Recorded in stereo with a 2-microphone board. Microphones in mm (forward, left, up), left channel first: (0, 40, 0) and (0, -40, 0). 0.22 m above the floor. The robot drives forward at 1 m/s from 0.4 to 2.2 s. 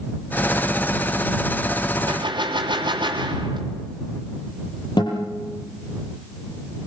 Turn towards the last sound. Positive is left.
turn(degrees=70)  # may be behind; listen again after turning